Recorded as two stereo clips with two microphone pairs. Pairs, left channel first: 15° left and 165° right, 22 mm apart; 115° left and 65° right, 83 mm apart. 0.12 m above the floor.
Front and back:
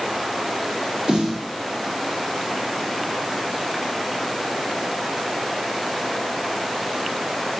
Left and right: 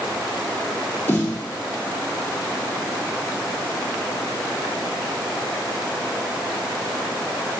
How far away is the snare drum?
About 2.5 m.